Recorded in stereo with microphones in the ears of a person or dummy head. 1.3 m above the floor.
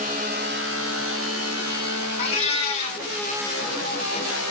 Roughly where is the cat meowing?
Left.